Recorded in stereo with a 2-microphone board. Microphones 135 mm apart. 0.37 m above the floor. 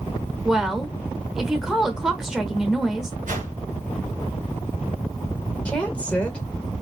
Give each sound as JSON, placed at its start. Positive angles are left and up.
{"t": 0.5, "sound": "a woman speaking", "side_deg": -5, "distance_m": 1.0}
{"t": 3.3, "sound": "a whoosh", "side_deg": -80, "distance_m": 2.0}
{"t": 5.7, "sound": "a woman speaking", "side_deg": 10, "distance_m": 1.3}